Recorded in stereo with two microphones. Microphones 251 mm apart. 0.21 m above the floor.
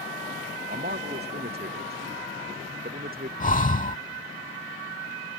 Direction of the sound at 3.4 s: 30° left (ahead or behind).